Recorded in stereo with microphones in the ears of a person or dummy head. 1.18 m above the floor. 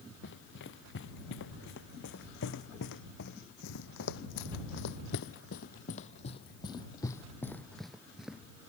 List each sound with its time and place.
0.2 s running footsteps: 65° left (ahead or behind); by 8.4 s 10° right (ahead or behind)